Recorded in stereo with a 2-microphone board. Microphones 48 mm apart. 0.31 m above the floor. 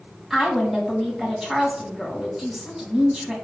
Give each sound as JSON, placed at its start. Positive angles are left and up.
{"t": 0.3, "sound": "a woman speaking", "side_deg": -10, "distance_m": 2.5}